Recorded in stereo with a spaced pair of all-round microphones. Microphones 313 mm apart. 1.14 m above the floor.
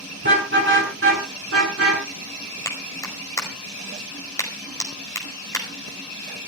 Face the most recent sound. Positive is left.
turn(degrees=10)  # may be behind; listen again after turning